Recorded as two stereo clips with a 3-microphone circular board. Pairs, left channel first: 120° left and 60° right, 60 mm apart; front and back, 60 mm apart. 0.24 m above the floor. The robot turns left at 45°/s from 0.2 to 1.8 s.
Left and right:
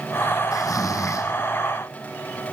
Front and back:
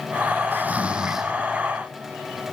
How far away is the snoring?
About 1.7 m.